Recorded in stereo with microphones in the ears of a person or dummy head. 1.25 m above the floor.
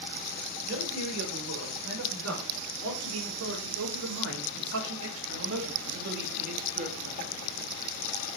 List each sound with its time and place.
0.7 s a man speaking: 65° right (ahead or behind), 5 m; by 7.3 s 40° right (ahead or behind), 2.5 m